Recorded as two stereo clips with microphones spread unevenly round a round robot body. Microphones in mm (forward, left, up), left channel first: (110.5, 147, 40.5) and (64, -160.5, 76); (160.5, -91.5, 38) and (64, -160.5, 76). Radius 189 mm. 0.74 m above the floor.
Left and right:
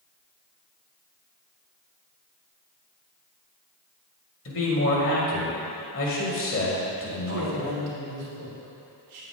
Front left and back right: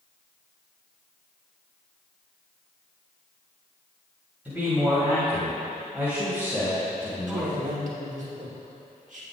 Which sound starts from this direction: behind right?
A man speaking, at 7.3 s.